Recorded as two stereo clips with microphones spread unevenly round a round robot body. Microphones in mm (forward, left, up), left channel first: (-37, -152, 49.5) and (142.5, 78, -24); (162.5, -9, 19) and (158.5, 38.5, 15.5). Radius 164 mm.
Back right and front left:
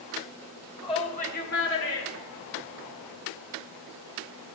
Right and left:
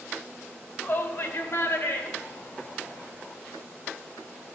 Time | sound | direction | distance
0.8 | a shout | 50° right | 2.5 m